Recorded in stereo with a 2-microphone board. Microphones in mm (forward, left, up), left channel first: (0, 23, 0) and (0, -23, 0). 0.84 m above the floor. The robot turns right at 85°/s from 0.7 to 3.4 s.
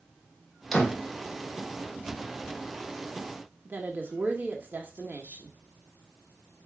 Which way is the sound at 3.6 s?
40° right (ahead or behind).